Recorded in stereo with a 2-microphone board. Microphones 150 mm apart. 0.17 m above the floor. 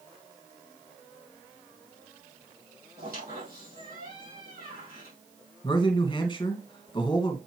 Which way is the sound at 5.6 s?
30° left (ahead or behind).